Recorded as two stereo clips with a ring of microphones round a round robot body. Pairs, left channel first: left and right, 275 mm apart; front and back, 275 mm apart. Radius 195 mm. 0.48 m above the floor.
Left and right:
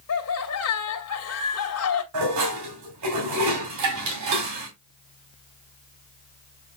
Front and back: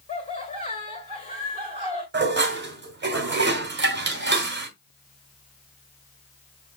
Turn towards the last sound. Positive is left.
turn(degrees=-130)